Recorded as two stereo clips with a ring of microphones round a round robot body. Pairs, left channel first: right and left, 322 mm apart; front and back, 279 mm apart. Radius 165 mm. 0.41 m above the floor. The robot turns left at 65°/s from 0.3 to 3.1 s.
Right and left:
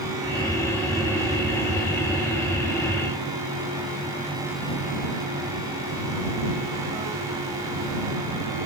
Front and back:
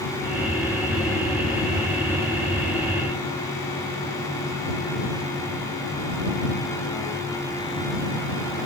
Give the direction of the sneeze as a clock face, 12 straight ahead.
No sneeze in this recording.